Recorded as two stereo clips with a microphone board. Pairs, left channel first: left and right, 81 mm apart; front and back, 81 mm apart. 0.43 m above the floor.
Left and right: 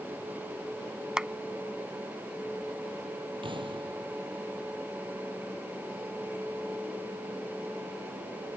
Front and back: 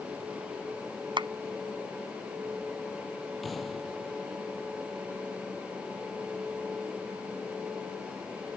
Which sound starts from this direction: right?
An explosion, at 3.4 s.